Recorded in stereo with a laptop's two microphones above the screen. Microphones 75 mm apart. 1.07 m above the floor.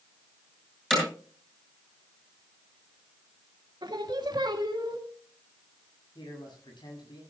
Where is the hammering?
5° left (ahead or behind), 7 m.